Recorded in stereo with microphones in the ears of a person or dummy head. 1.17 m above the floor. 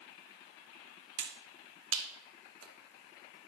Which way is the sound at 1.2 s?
80° right.